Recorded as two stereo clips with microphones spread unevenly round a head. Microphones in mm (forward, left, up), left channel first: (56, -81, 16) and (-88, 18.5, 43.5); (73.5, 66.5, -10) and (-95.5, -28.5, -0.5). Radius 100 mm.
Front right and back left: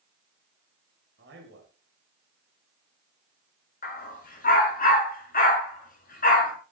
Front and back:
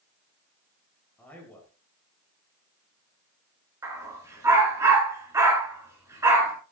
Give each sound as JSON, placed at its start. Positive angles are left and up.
{"t": 1.2, "sound": "a man speaking", "azimuth_deg": 110, "distance_m": 6.0}
{"t": 3.8, "sound": "a dog barking", "azimuth_deg": -75, "distance_m": 6.5}